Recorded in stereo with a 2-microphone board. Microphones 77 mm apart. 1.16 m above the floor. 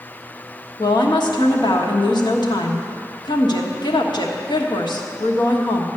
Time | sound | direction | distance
0.8 | a woman speaking | 70° left (ahead or behind) | 1.4 m